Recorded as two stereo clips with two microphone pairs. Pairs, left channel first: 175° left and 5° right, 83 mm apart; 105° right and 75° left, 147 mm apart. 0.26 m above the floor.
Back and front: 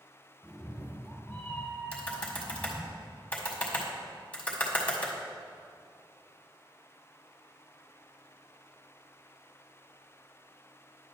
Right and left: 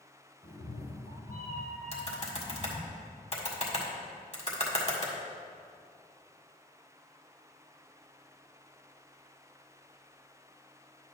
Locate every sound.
0.4 s a cat meowing: 115° right, 2.5 m
1.9 s typing on a keyboard: 115° right, 1.6 m